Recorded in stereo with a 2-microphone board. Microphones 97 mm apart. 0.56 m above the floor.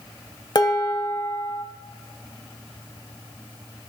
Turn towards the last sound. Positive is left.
turn(degrees=45)  # may be behind; listen again after turning